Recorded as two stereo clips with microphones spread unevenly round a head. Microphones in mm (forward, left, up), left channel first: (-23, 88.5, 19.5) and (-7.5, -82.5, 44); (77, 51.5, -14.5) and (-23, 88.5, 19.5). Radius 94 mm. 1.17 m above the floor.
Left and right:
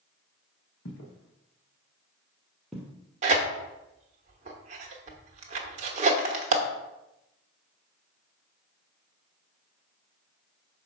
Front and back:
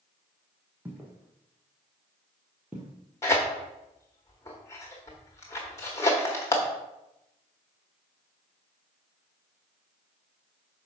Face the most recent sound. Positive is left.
turn(degrees=-105)